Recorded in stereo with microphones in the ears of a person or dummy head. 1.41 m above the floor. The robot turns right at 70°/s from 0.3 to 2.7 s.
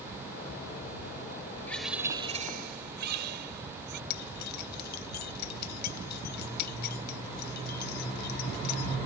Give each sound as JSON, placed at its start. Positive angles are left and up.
{"t": 1.7, "sound": "a bird", "azimuth_deg": 170}
{"t": 4.1, "sound": "keys jangling", "side_deg": 55}